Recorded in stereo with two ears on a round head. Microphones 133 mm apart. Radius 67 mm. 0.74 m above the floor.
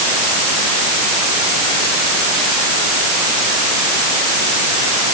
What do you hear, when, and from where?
Only background noise.